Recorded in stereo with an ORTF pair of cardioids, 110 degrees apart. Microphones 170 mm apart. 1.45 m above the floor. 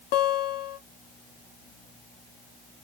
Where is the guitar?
70° left, 0.7 m.